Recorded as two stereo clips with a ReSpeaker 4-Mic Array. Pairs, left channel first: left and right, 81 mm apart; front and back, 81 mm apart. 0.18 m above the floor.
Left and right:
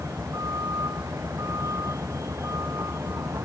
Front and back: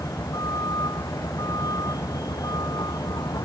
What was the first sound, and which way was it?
A vehicle, 40° right.